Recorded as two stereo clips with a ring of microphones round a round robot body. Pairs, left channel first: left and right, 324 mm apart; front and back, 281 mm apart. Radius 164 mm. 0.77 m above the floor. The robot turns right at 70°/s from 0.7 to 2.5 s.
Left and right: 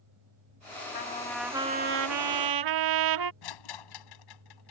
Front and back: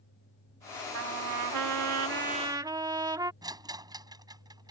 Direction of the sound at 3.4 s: 105° left.